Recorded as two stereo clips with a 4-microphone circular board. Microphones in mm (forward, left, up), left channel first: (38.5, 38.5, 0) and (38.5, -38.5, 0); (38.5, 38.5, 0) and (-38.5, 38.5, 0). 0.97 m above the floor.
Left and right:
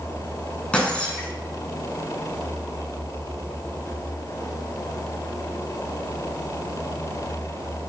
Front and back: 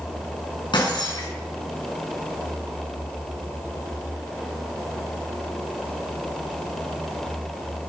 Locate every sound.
0.7 s breaking glass: 15° left, 6.5 m